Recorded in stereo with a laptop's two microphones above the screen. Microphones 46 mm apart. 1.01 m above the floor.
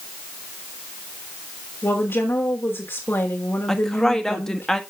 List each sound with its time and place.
1.8 s a woman speaking: 60° left (ahead or behind), 1.6 m
3.7 s a woman speaking: 10° left (ahead or behind), 1.3 m